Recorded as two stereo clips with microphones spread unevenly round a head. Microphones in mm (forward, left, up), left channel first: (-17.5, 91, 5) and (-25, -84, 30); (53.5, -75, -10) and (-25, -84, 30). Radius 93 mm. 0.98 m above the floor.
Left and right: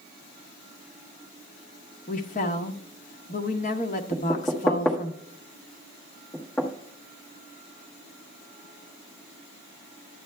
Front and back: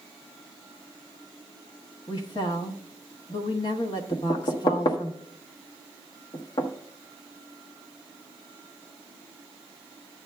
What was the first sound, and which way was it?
A woman speaking, 40° left.